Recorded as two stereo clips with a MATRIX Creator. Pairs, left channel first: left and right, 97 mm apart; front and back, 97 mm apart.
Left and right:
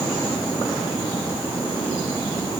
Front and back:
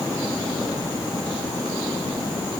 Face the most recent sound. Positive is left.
No sound to turn to.